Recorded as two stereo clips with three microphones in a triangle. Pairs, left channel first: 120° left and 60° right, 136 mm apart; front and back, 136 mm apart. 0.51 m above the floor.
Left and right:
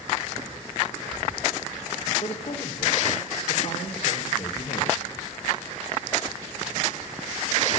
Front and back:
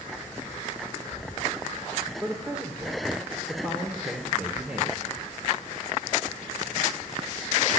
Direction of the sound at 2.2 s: 100° left.